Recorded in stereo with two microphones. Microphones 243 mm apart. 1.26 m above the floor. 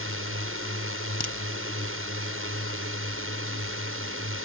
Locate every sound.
0.0 s a drone: 60° right (ahead or behind)
1.2 s a crack: 40° left (ahead or behind)